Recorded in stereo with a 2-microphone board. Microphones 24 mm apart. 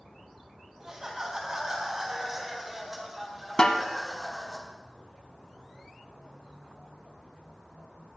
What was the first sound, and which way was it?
Laughter, 30° right (ahead or behind).